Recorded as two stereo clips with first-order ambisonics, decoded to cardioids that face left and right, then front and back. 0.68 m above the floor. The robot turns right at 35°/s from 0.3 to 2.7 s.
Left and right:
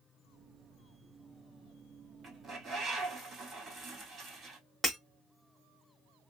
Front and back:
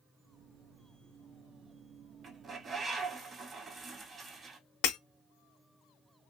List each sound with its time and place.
2.2 s a bird: 135° right, 1.1 m; by 4.6 s 120° right, 1.1 m
4.8 s breaking glass: 10° right, 1.0 m